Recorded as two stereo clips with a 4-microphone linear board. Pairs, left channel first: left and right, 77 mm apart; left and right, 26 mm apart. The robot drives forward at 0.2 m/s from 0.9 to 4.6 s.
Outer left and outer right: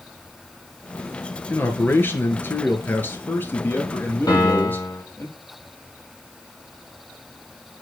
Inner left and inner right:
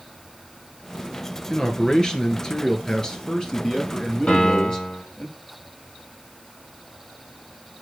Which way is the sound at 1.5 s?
30° left (ahead or behind).